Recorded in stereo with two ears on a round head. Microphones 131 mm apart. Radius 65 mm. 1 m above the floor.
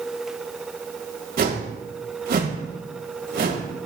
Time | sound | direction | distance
1.4 | a whoosh | 65° right (ahead or behind) | 1.9 m